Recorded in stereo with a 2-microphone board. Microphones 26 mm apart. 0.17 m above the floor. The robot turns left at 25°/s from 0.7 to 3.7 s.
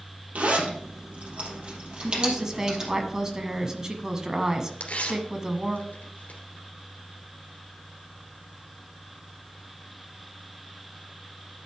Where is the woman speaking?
20° right (ahead or behind), 1.2 m; by 5.8 s 25° right (ahead or behind), 1.2 m.